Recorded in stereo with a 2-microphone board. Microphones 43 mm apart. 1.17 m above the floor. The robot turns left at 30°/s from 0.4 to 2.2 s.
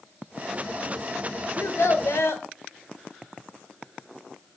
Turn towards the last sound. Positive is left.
turn(degrees=80)